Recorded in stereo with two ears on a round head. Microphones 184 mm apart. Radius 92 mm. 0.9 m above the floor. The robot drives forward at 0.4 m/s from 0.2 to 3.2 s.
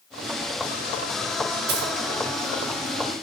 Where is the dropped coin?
50° right (ahead or behind), 3.5 m.